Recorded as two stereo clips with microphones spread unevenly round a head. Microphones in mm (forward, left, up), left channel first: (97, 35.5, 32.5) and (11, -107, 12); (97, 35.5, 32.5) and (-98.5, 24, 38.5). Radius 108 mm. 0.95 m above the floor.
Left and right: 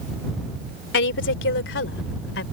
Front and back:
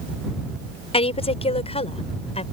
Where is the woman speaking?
65° left.